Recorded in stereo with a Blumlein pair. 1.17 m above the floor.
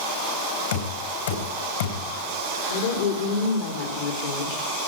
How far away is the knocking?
About 3.5 m.